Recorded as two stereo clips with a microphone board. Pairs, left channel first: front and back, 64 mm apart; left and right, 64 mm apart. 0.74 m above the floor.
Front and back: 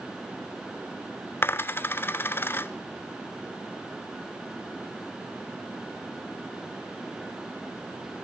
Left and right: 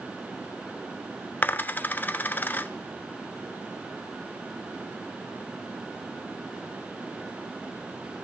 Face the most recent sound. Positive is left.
turn(degrees=40)